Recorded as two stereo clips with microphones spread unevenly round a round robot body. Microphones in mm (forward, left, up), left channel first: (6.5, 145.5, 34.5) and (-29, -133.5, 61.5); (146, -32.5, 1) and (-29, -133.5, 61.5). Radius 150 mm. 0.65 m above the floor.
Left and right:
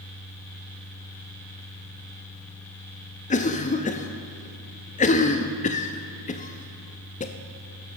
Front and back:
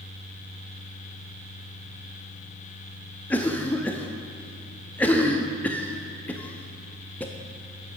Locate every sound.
3.3 s a cough: 70° left, 0.7 m